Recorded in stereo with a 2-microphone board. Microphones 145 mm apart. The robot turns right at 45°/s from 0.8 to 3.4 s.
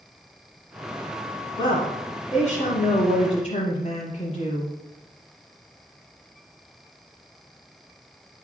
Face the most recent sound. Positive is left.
turn(degrees=120)